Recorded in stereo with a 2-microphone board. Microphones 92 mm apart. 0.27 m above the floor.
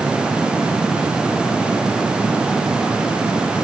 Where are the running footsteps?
No running footsteps in this recording.